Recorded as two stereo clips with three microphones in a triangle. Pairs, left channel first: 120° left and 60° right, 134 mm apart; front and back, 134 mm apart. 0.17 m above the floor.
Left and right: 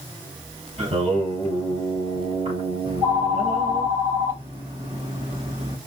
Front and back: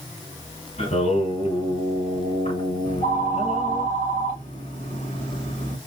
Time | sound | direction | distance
0.8 | singing | 25° right | 3 m
2.9 | a phone ringing | straight ahead | 2.5 m